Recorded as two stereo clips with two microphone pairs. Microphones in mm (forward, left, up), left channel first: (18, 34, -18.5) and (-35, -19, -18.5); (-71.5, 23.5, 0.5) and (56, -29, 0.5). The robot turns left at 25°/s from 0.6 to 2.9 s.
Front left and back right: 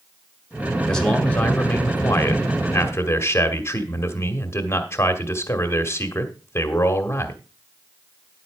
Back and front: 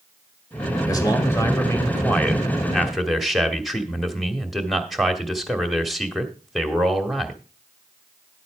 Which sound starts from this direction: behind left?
A man speaking, at 0.9 s.